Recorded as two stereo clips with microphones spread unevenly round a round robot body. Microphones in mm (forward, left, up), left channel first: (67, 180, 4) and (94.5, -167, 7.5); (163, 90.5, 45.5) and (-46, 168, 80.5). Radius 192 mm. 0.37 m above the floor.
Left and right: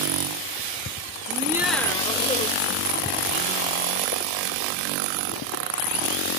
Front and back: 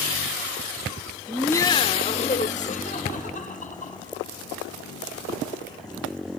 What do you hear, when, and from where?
1.3 s laughter: 85° right, 0.9 m; by 4.3 s 35° left, 4 m